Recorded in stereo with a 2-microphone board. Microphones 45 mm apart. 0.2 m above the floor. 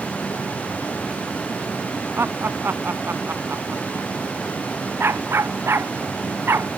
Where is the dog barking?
60° right (ahead or behind).